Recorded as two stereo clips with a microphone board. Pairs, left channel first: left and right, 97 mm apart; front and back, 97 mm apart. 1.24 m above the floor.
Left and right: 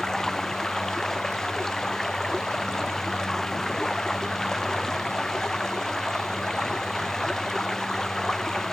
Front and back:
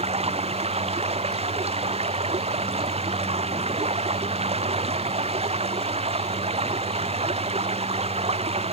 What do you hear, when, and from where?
0.0 s running water: 175° left